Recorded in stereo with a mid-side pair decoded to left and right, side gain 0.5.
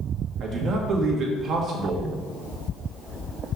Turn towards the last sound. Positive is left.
turn(degrees=-60)